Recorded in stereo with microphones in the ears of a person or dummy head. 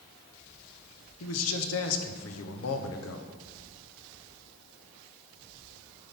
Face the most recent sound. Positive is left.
turn(degrees=75)  # may be behind; listen again after turning